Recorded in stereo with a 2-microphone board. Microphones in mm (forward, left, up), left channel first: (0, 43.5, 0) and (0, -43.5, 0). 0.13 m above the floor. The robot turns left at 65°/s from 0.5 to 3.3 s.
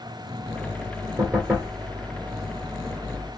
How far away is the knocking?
About 1.6 m.